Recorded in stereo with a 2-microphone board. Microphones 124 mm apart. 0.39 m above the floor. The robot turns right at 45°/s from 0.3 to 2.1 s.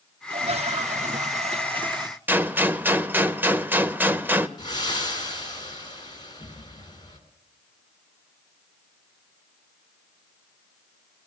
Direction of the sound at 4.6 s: 35° left (ahead or behind).